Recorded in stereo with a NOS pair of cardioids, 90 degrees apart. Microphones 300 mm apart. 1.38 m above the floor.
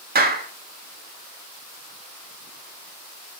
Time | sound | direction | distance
0.1 | a clap | 30° right | 1.8 m